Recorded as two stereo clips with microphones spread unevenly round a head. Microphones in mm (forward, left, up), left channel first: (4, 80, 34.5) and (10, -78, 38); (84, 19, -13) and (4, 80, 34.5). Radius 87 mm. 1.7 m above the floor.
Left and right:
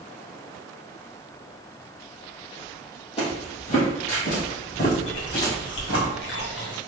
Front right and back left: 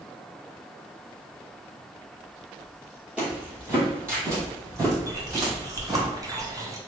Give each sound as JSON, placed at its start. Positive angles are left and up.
{"t": 3.2, "sound": "footsteps", "azimuth_deg": 125, "distance_m": 2.0}
{"t": 5.1, "sound": "chewing", "azimuth_deg": 110, "distance_m": 0.9}